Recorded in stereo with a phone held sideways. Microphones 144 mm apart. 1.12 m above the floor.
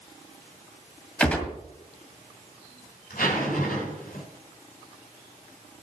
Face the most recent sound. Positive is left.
turn(degrees=85)